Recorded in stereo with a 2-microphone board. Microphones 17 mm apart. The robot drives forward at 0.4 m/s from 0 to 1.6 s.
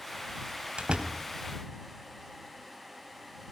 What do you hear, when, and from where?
0.8 s a door slam: 70° right (ahead or behind), 2.5 m